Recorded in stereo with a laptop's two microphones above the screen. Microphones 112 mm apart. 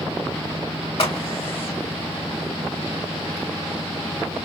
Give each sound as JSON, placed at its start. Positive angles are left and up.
{"t": 1.0, "sound": "a crack", "side_deg": 55, "distance_m": 1.9}